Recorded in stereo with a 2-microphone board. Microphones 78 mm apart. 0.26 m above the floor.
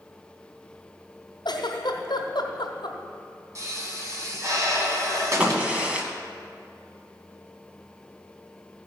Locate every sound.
1.4 s a giggle: 90° left, 1.5 m
3.5 s a pop: 45° right (ahead or behind), 2 m
5.4 s a crack: 15° right (ahead or behind), 1.3 m